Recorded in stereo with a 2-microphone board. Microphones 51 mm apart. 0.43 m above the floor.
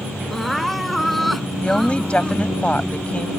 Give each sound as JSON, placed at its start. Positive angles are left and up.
{"t": 0.3, "sound": "crying", "side_deg": 0}
{"t": 1.6, "sound": "a woman speaking", "side_deg": 25}